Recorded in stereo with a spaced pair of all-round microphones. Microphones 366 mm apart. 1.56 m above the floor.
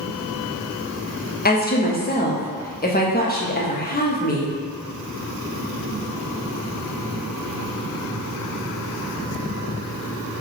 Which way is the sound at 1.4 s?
25° left (ahead or behind).